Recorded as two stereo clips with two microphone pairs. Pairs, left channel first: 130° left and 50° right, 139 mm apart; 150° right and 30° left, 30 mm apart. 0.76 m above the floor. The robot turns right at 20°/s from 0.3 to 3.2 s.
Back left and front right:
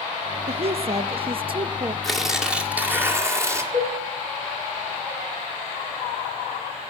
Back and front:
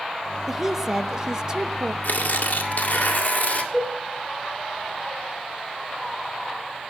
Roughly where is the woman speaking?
Ahead right.